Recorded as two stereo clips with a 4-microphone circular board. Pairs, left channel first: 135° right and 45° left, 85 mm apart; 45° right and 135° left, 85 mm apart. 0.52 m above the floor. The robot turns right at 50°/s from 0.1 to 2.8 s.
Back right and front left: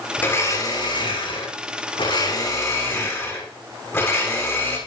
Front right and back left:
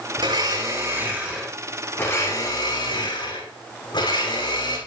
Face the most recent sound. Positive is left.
turn(degrees=-75)